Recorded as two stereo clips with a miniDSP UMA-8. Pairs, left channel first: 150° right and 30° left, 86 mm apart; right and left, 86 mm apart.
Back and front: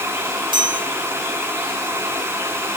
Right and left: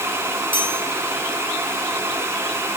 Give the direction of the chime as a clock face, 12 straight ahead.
11 o'clock.